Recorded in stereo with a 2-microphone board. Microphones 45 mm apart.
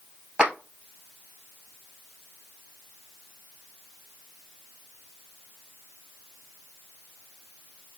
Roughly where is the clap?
Right.